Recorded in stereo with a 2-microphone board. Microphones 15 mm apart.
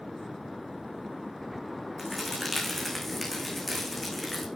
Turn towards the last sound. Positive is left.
turn(degrees=5)  # may be behind; listen again after turning